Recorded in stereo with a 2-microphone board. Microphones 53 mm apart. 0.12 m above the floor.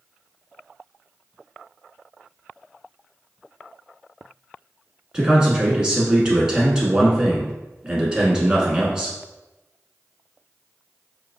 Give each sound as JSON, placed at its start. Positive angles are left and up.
{"t": 5.1, "sound": "a man speaking", "side_deg": -15, "distance_m": 1.0}